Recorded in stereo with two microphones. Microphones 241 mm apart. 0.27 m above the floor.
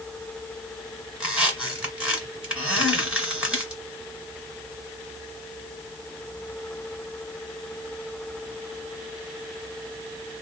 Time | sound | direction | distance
1.2 | a squeak | 5° right (ahead or behind) | 2.5 m